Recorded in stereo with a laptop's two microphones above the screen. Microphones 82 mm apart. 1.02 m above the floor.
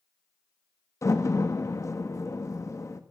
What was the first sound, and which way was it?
A door slam, 35° left (ahead or behind).